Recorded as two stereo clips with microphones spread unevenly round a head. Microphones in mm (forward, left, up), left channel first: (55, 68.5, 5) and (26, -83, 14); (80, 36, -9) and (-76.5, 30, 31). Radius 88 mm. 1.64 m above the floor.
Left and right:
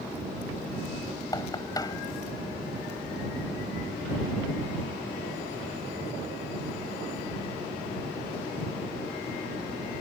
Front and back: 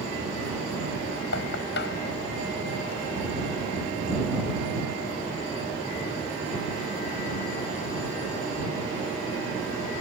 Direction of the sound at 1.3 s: 10° left.